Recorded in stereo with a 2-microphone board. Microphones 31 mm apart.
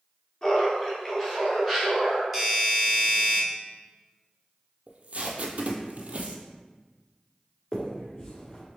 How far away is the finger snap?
About 1.5 m.